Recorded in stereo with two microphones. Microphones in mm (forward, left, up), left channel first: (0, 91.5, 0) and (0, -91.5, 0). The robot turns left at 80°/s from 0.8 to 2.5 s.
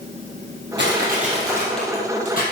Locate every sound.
0.8 s crushing: 105° right, 3.5 m; by 2.4 s 125° left, 3.5 m